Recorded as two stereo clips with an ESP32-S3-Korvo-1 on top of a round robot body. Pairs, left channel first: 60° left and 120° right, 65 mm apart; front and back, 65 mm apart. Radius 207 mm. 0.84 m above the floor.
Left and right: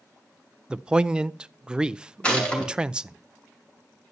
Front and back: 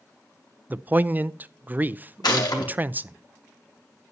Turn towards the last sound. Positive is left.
turn(degrees=-15)